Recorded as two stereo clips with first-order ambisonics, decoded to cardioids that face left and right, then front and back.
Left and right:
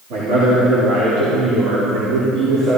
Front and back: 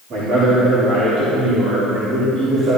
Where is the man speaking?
115° right, 4 m; by 2.8 s 100° right, 5 m.